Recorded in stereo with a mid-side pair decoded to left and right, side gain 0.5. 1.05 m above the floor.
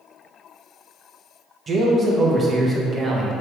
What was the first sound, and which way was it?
A man speaking, 35° right.